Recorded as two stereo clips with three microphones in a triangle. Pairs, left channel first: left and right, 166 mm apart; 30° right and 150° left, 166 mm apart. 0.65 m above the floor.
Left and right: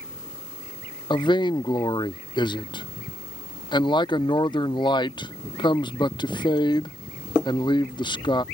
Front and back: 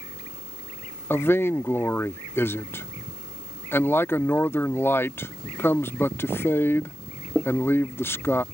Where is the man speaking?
40° left.